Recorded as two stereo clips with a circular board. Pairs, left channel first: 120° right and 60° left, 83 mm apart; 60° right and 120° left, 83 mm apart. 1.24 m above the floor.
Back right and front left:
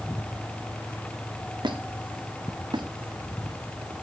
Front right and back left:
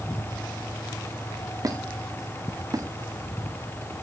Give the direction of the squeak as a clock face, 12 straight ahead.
9 o'clock.